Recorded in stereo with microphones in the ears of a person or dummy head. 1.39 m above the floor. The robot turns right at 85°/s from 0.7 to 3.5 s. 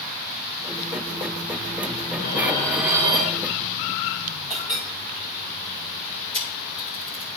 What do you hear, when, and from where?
2.2 s dishes clattering: 130° left, 0.6 m; by 3.4 s 120° right, 0.6 m
4.5 s a clink: 20° left (ahead or behind), 3.5 m
6.3 s a camera shutter: 40° left (ahead or behind), 2.5 m